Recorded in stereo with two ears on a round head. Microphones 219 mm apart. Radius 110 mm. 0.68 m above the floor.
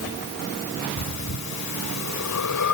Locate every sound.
1.0 s breathing: 75° left (ahead or behind), 1.4 m